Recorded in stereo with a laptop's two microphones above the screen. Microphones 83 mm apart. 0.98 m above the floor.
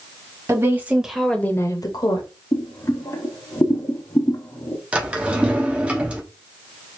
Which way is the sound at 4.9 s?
15° right (ahead or behind).